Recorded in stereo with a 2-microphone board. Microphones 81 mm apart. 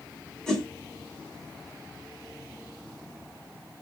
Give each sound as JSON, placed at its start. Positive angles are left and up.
{"t": 0.5, "sound": "a whoosh", "side_deg": 5, "distance_m": 1.6}